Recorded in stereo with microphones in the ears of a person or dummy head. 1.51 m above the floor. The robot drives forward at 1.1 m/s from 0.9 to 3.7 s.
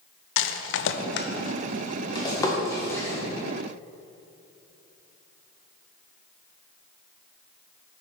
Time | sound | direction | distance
0.4 | a rattle | 65° left (ahead or behind) | 0.6 m